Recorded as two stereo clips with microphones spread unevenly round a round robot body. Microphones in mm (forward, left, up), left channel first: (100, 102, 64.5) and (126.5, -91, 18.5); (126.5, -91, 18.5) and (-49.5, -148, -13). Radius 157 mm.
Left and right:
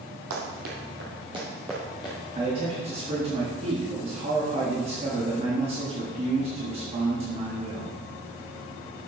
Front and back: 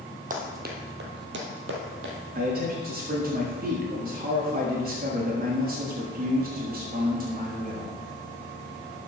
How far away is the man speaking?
About 1.4 m.